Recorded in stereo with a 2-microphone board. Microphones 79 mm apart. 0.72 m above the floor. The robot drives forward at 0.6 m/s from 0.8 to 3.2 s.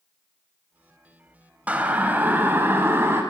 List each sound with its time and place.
1.7 s a siren: 20° right (ahead or behind), 3.5 m; by 3.2 s 30° right (ahead or behind), 5 m